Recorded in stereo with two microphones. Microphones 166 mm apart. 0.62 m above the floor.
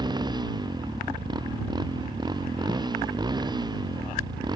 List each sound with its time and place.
0.0 s a motorcycle: 25° right (ahead or behind)